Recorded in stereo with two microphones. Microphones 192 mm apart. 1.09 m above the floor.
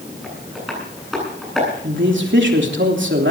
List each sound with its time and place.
0.2 s tapping: centre (ahead or behind), 10 m
1.8 s a man speaking: 75° right (ahead or behind), 3 m